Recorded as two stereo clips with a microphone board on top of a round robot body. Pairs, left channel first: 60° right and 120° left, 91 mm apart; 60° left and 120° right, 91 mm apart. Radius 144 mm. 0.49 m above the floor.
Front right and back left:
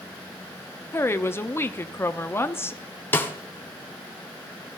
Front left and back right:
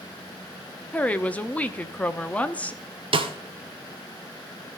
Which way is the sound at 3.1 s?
125° right.